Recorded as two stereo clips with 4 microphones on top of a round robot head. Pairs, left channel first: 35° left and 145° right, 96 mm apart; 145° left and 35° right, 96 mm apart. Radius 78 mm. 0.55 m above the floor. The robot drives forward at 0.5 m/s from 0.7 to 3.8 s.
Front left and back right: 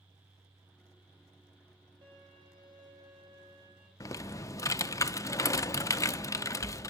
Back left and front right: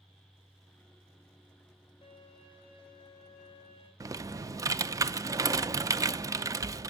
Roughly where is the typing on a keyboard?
Ahead.